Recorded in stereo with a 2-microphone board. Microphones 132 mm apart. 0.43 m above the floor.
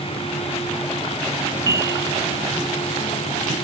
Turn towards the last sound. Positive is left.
turn(degrees=-25)  # may be behind; listen again after turning